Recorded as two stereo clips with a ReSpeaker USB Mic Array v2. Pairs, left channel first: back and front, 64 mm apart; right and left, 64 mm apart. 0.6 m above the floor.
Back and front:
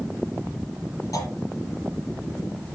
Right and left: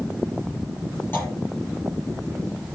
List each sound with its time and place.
1.1 s a clunk: 150° right, 5 m